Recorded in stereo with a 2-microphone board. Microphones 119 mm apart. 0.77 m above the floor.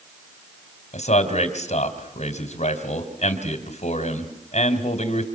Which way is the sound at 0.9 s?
75° left (ahead or behind).